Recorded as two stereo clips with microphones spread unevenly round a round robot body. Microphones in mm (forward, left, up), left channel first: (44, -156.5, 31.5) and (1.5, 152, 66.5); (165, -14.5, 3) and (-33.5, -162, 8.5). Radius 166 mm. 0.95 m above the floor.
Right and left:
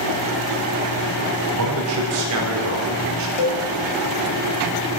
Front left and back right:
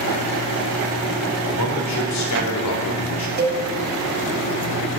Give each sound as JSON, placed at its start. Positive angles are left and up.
{"t": 1.5, "sound": "a man speaking", "azimuth_deg": 70, "distance_m": 4.5}
{"t": 3.4, "sound": "a cowbell", "azimuth_deg": -90, "distance_m": 4.5}